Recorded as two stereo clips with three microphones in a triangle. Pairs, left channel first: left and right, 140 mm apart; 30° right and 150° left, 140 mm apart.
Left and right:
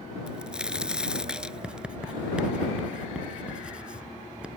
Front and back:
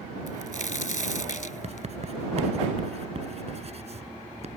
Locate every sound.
0.3 s a crack: 5° right
1.6 s writing: 170° right